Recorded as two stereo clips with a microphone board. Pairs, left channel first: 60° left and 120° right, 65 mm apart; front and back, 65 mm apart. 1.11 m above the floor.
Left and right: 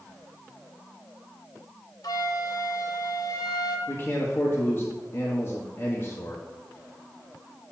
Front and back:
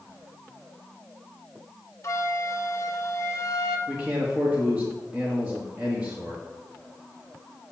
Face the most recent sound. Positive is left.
turn(degrees=115)